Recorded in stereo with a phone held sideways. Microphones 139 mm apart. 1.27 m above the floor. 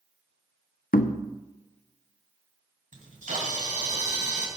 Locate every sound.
0.9 s knocking: 80° left, 0.6 m
2.9 s a camera shutter: 65° right (ahead or behind), 2.5 m